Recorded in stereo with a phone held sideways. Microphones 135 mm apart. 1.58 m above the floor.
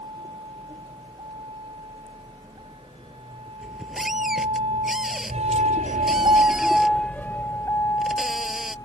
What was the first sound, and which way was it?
A vehicle, 40° right (ahead or behind).